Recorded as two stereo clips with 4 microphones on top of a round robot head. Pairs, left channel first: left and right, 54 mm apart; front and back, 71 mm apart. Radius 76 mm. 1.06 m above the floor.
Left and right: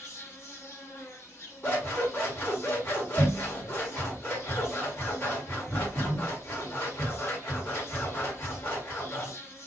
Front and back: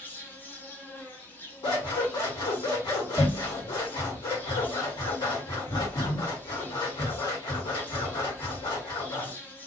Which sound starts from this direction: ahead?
Scissors, at 1.6 s.